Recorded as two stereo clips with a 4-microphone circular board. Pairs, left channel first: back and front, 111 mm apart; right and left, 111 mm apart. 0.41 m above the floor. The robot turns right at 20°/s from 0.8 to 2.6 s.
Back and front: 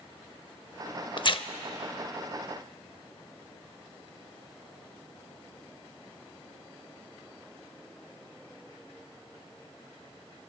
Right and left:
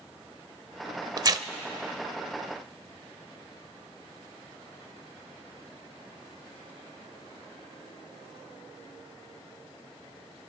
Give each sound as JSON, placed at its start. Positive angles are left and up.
{"t": 1.2, "sound": "tearing paper", "azimuth_deg": 140, "distance_m": 0.5}